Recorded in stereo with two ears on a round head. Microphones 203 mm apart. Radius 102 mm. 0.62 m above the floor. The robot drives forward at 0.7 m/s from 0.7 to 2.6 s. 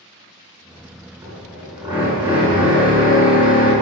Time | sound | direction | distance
1.2 | a drill | 10° right (ahead or behind) | 7 m